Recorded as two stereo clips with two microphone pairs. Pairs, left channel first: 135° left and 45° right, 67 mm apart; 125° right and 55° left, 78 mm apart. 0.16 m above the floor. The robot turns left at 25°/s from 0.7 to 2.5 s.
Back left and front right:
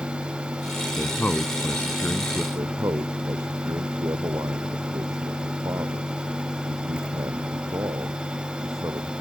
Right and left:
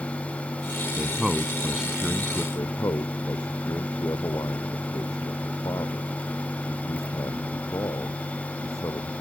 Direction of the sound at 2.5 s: 80° right.